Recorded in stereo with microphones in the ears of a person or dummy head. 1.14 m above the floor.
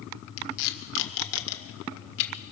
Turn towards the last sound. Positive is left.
turn(degrees=65)  # may be behind; listen again after turning